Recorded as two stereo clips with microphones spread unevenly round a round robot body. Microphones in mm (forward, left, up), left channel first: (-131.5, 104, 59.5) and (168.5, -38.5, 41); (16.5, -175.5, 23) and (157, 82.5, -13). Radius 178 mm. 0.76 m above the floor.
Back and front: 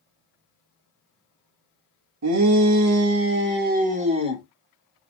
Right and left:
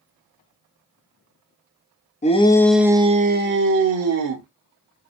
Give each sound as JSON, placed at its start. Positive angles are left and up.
{"t": 2.2, "sound": "a shout", "azimuth_deg": -50, "distance_m": 0.9}